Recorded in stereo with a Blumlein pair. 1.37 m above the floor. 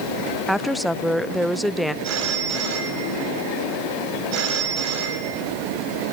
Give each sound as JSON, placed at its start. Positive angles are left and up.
{"t": 0.5, "sound": "a woman speaking", "azimuth_deg": 0, "distance_m": 0.6}
{"t": 2.0, "sound": "a phone ringing", "azimuth_deg": -40, "distance_m": 6.5}